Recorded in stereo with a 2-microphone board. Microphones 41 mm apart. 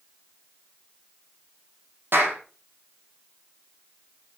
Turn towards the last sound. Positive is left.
turn(degrees=-65)  # may be behind; listen again after turning